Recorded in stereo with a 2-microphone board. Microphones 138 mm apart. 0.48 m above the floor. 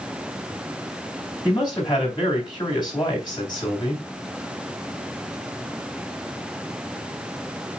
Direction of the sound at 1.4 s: 35° left (ahead or behind).